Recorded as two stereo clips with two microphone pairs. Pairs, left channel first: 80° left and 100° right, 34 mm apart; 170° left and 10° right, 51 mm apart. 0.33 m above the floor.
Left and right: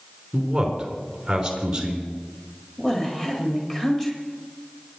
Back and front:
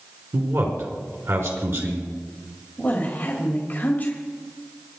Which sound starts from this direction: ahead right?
A man speaking, at 0.3 s.